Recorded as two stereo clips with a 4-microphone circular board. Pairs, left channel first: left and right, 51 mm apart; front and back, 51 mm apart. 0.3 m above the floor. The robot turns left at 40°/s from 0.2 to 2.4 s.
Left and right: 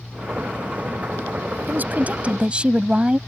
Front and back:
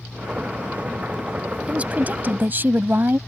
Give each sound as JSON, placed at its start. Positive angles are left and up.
{"t": 1.7, "sound": "a woman speaking", "azimuth_deg": -125}